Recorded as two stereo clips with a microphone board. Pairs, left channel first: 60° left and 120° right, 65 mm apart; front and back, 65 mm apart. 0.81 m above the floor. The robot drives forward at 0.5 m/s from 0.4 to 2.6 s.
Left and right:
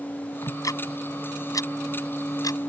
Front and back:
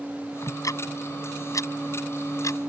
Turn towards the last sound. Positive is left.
turn(degrees=35)